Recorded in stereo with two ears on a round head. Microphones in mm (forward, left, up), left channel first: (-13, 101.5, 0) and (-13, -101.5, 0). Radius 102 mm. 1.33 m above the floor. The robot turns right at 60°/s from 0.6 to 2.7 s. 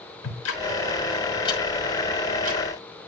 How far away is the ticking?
About 6 m.